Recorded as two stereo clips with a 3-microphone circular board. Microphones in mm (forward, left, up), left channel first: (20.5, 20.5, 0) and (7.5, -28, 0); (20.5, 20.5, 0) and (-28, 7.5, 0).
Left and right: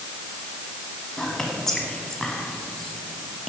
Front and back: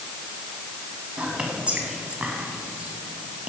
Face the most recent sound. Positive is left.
turn(degrees=145)